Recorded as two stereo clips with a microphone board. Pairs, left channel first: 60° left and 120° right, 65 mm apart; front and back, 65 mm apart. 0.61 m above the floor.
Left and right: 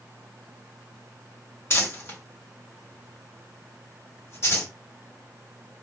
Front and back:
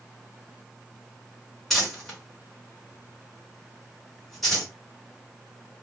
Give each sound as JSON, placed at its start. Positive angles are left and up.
{"t": 1.7, "sound": "crumpling", "azimuth_deg": 85, "distance_m": 1.7}